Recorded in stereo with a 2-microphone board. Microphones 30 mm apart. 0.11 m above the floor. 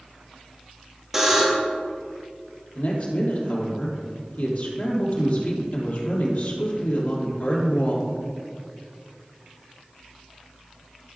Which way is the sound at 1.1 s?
10° right (ahead or behind).